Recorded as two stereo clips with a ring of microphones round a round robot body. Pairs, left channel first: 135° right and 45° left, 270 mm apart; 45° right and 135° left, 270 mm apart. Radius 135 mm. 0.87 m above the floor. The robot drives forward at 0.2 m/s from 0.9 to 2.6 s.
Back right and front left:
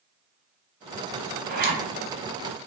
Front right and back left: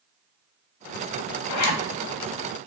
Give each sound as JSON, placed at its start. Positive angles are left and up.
{"t": 1.5, "sound": "a zipper", "azimuth_deg": -15, "distance_m": 0.5}